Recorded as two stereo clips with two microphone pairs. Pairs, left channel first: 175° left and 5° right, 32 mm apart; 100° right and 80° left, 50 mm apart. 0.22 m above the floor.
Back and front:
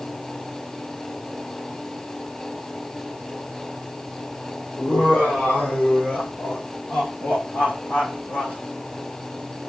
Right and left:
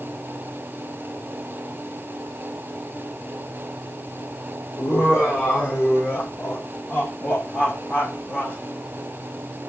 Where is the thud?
No thud in this recording.